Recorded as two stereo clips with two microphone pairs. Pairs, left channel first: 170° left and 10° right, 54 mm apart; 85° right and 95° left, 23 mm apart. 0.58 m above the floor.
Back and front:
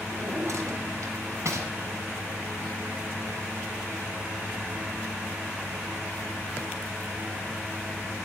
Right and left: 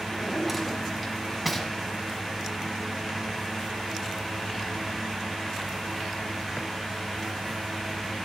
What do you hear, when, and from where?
0.1 s a drawer: straight ahead, 1.7 m